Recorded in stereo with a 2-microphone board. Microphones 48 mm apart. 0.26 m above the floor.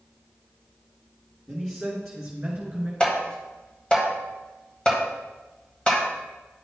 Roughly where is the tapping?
Left.